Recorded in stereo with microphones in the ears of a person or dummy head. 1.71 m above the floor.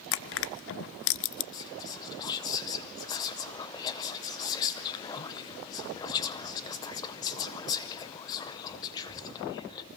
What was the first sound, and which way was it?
Crushing, 65° left (ahead or behind).